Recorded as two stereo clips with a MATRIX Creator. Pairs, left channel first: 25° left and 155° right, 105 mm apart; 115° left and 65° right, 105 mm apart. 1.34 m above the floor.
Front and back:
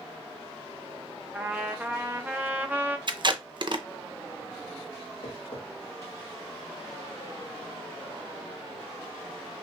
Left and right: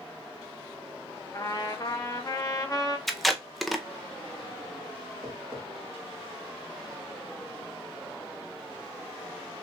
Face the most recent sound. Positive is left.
turn(degrees=-5)